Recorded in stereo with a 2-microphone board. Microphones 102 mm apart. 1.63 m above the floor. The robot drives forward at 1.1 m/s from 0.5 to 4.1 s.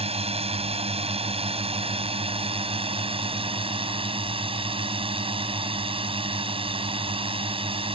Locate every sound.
0.0 s a drone: 75° right (ahead or behind); by 8.0 s 65° right (ahead or behind)